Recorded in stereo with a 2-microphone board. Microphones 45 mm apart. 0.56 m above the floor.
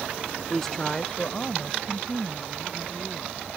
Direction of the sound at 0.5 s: 5° left (ahead or behind).